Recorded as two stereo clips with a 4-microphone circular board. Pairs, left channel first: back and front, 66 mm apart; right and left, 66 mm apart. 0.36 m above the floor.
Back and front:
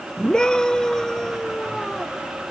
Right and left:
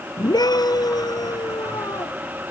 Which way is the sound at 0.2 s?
100° right.